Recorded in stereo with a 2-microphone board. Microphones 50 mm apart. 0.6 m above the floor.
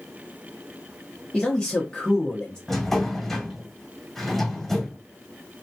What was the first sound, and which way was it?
A man speaking, 15° left (ahead or behind).